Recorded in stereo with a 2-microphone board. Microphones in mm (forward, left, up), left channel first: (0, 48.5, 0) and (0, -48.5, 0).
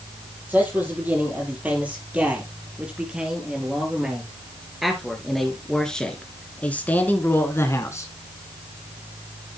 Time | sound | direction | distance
0.5 | a man speaking | 15° right (ahead or behind) | 6 m